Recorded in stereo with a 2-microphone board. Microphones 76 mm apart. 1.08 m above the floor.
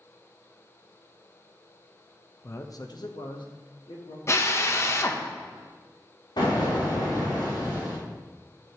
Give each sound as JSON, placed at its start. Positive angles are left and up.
{"t": 2.4, "sound": "a man speaking", "side_deg": 35, "distance_m": 0.7}
{"t": 4.3, "sound": "a drill", "side_deg": 35, "distance_m": 0.8}
{"t": 6.4, "sound": "an explosion", "side_deg": 80, "distance_m": 3.0}